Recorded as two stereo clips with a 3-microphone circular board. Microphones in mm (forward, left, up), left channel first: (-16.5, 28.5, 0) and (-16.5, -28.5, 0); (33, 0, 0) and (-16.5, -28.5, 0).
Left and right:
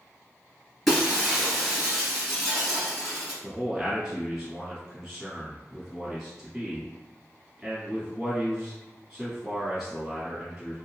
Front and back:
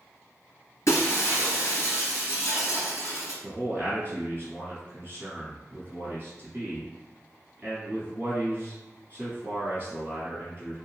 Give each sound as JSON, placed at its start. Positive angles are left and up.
{"t": 0.9, "sound": "breaking glass", "azimuth_deg": 0, "distance_m": 1.8}
{"t": 3.4, "sound": "a man speaking", "azimuth_deg": -160, "distance_m": 1.5}